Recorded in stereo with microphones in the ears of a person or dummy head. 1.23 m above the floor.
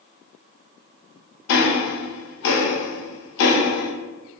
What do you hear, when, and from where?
1.5 s ticking: 75° left (ahead or behind), 0.6 m